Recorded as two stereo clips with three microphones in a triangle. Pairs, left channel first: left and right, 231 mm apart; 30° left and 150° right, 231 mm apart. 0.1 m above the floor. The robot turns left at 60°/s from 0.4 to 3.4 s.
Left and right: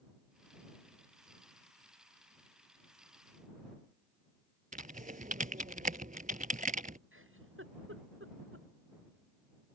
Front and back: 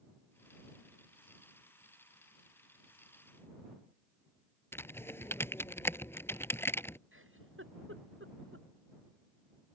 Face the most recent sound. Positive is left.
turn(degrees=-120)